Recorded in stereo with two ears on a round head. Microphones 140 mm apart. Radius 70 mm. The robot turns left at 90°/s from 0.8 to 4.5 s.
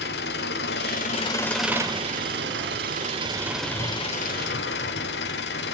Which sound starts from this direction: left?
An engine running, at 0.0 s.